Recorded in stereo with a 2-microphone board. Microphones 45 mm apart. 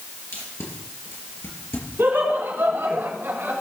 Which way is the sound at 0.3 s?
80° left.